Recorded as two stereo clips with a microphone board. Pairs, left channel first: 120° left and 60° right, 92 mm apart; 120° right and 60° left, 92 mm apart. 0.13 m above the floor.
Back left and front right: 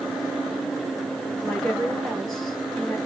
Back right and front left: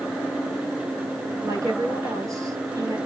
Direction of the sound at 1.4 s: 35° left.